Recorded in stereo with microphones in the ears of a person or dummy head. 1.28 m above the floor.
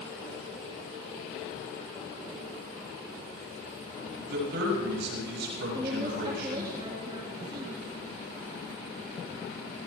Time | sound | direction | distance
4.3 | a man speaking | 70° right (ahead or behind) | 7.5 m
5.7 | a woman speaking | 30° right (ahead or behind) | 2 m